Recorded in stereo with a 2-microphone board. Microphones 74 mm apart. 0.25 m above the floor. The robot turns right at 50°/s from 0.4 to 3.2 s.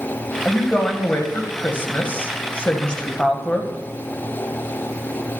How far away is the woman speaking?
About 1.1 m.